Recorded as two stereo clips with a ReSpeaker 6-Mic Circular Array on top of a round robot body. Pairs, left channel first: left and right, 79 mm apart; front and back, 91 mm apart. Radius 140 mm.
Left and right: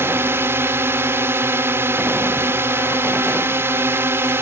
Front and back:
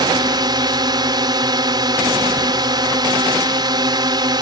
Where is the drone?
145° right.